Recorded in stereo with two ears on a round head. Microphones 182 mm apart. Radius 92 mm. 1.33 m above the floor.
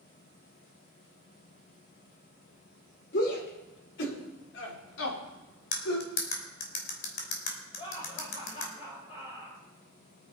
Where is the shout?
55° left (ahead or behind), 4.5 m; by 6.1 s 85° left, 4 m.